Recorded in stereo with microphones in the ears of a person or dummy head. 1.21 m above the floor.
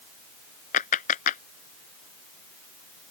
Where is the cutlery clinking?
No cutlery clinking in this recording.